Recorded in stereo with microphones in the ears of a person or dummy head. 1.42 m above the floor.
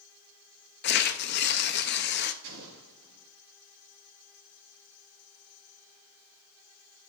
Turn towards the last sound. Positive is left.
turn(degrees=-70)  # may be behind; listen again after turning